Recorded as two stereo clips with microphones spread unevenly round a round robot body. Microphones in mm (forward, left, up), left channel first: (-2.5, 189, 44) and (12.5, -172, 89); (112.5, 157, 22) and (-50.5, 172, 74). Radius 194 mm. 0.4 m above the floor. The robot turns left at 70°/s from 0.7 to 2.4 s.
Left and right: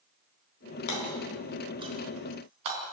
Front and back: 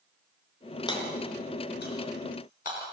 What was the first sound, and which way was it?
Hammering, 55° left.